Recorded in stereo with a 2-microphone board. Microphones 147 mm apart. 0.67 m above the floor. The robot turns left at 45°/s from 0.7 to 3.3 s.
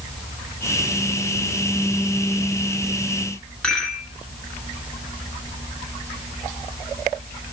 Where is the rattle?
5° left (ahead or behind), 7 m.